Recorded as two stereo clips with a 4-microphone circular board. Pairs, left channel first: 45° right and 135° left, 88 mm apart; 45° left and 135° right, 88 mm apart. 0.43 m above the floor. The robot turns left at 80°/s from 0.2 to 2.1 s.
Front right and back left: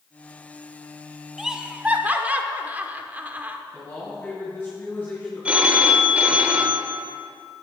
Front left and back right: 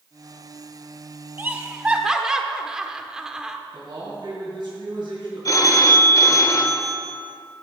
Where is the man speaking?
110° right, 2.5 m.